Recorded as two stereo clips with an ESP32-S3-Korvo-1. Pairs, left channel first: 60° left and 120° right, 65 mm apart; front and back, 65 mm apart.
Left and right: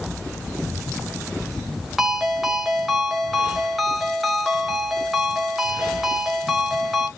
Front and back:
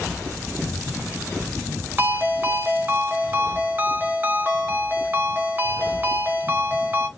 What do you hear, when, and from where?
2.0 s a ringtone: 155° left, 1.1 m